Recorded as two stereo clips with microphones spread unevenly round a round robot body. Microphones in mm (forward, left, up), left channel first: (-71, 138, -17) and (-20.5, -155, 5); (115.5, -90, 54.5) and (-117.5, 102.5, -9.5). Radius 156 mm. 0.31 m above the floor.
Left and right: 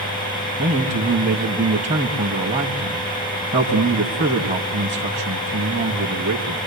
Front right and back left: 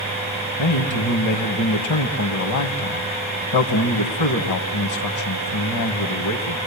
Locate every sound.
0.6 s a man speaking: 10° right, 2.5 m